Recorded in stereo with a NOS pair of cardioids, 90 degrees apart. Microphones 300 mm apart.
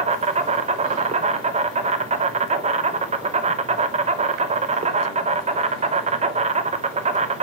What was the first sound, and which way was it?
An insect, 25° right.